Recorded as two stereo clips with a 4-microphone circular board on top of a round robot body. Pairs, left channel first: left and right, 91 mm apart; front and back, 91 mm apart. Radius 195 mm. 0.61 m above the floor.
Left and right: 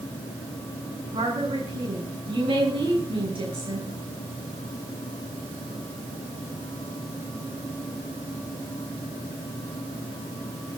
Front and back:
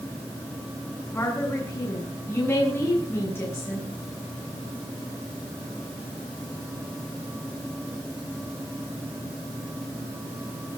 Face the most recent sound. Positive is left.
turn(degrees=-65)